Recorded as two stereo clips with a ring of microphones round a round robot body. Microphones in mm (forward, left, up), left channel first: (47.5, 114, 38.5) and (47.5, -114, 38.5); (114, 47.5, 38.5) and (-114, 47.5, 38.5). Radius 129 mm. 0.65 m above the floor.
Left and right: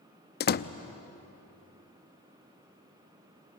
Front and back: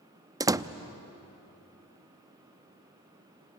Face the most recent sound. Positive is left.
turn(degrees=110)